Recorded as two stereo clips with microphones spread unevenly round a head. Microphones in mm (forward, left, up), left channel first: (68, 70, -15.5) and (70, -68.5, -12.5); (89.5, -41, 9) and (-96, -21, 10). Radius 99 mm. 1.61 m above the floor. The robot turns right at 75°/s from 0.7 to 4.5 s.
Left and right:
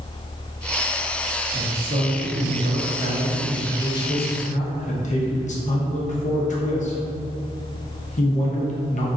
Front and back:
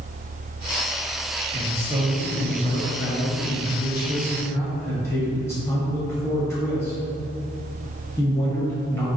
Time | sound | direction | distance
1.5 | a man speaking | 155° right | 1.0 m